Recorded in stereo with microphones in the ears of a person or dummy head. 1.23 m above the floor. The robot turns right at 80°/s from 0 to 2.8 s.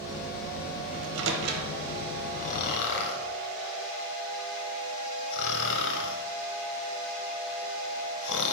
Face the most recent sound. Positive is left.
turn(degrees=60)  # may be behind; listen again after turning